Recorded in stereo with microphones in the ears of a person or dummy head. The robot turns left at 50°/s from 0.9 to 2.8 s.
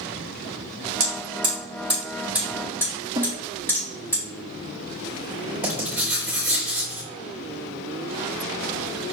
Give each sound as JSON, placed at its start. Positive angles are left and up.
{"t": 1.0, "sound": "hammering", "side_deg": -60, "distance_m": 3.0}
{"t": 3.1, "sound": "a snare drum", "side_deg": -15, "distance_m": 0.9}
{"t": 5.6, "sound": "writing", "side_deg": -10, "distance_m": 3.0}